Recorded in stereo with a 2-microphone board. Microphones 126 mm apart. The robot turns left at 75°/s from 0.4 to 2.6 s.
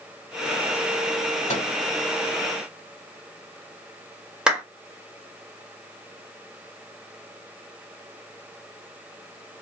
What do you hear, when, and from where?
1.5 s a microwave: 70° left (ahead or behind), 2 m
4.5 s a clap: 5° right (ahead or behind), 1.5 m